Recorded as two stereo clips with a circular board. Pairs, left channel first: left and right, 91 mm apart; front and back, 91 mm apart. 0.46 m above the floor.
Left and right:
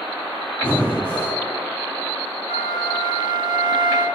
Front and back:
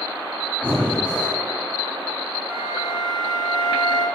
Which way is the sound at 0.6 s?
55° left.